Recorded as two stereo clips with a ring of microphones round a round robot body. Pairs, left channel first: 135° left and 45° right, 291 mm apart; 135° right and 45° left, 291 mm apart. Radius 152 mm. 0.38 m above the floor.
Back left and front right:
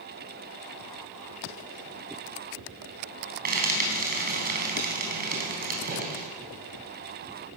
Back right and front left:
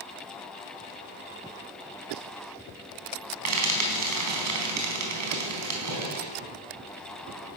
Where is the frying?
15° left, 4 m.